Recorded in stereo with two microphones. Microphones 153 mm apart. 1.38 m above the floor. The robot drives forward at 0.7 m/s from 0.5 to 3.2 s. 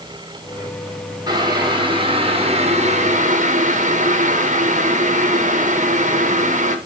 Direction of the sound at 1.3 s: 25° right (ahead or behind).